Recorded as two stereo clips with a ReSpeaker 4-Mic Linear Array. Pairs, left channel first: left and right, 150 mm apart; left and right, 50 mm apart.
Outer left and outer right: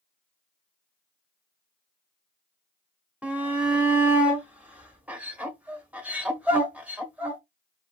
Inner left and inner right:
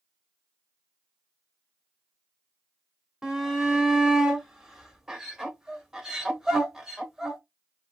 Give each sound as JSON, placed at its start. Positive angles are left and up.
{"t": 3.2, "sound": "a shout", "side_deg": -10, "distance_m": 1.1}